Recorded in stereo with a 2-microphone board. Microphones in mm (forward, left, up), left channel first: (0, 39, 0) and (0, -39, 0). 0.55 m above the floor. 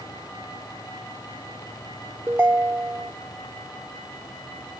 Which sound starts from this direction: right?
A ringtone, at 2.3 s.